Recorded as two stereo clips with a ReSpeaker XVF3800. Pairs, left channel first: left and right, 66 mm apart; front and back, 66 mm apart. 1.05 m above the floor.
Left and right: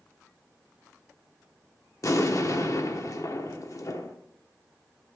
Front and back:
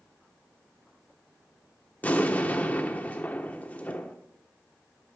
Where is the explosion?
60° left, 1.0 m.